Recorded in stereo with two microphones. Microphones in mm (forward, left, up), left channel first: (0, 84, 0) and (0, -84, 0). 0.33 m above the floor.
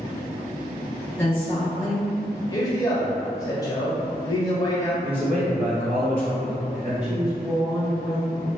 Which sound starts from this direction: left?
A man speaking, at 2.5 s.